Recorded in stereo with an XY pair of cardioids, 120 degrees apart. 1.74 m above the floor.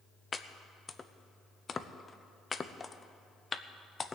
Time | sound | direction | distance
0.3 | chopping | 25° left | 0.7 m